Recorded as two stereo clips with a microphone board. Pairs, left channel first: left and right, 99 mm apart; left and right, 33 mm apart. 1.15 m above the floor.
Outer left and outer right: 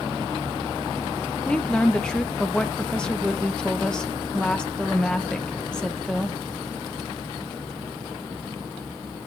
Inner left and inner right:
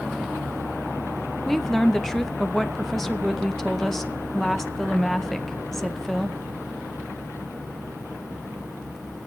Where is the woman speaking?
5° left (ahead or behind), 0.6 m.